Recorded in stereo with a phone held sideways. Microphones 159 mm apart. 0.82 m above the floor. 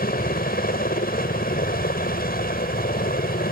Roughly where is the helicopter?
Left.